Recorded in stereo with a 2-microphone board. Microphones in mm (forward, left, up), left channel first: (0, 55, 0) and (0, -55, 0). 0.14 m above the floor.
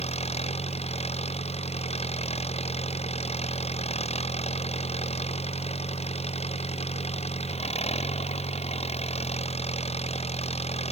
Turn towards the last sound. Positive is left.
turn(degrees=65)  # may be behind; listen again after turning